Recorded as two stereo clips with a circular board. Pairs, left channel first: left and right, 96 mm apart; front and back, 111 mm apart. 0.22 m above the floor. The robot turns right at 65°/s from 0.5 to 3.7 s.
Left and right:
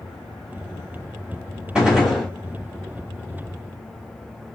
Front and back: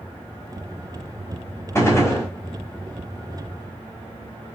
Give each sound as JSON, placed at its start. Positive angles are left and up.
{"t": 1.8, "sound": "a gunshot", "azimuth_deg": -20, "distance_m": 1.3}